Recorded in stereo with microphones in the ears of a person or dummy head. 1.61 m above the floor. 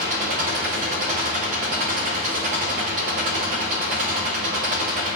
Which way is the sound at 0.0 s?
35° right (ahead or behind).